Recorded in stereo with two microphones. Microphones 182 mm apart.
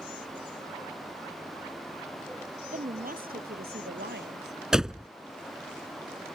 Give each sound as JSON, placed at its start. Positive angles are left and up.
{"t": 2.7, "sound": "a woman speaking", "side_deg": -45}
{"t": 4.7, "sound": "a door slam", "side_deg": -5}